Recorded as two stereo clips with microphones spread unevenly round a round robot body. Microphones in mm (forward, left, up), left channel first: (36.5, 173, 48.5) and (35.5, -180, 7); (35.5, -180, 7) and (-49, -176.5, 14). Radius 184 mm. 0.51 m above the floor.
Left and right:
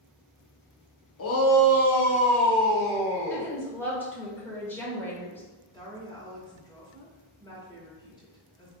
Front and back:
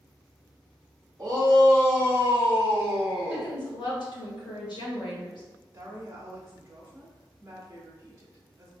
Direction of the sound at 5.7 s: 165° left.